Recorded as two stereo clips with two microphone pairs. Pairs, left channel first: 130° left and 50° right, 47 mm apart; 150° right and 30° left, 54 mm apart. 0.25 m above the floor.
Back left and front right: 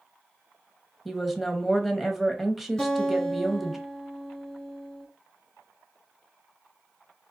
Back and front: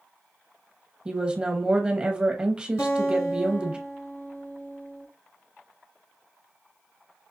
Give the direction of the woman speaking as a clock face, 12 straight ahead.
11 o'clock.